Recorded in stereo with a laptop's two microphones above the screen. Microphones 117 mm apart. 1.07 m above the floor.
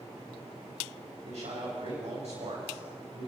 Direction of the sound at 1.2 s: 70° right (ahead or behind).